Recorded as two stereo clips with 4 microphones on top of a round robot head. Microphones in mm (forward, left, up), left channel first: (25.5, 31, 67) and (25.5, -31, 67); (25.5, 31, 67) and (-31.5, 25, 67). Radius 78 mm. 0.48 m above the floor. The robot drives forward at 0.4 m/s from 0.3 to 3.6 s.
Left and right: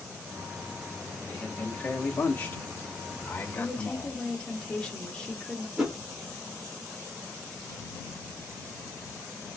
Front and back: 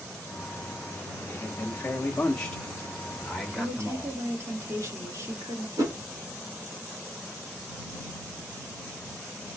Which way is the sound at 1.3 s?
40° left.